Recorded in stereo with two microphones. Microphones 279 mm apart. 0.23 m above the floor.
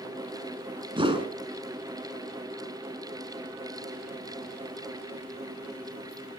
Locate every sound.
1.0 s a whoosh: 20° right (ahead or behind), 2.5 m